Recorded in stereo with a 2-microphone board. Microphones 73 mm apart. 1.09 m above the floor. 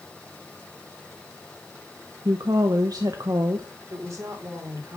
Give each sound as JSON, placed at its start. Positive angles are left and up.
{"t": 2.2, "sound": "a woman speaking", "side_deg": -60, "distance_m": 1.1}
{"t": 3.9, "sound": "a woman speaking", "side_deg": -45, "distance_m": 3.5}